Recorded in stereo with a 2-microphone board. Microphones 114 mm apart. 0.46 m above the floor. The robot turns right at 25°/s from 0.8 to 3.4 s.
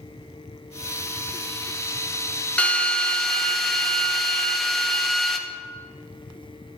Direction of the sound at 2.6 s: 10° left (ahead or behind).